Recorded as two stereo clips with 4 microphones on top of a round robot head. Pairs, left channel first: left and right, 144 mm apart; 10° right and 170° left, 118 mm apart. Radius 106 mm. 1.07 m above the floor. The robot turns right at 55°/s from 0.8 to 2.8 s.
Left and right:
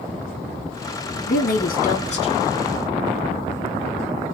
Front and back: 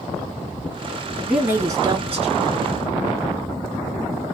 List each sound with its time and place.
1.3 s a woman speaking: 85° left, 2.5 m; by 2.6 s 160° left, 2.5 m